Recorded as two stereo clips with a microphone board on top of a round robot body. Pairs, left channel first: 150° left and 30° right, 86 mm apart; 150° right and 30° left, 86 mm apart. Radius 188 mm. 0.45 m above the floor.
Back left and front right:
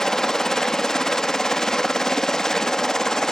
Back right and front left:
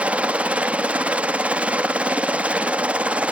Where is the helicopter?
75° left.